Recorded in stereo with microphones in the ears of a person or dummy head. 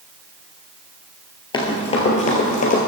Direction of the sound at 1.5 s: 20° left (ahead or behind).